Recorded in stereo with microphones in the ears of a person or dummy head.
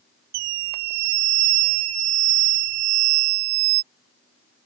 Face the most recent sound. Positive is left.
turn(degrees=-85)